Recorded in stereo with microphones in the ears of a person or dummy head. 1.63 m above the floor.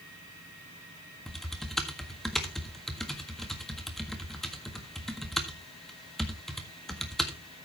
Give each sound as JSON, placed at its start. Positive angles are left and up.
{"t": 1.3, "sound": "typing on a keyboard", "side_deg": 0, "distance_m": 1.5}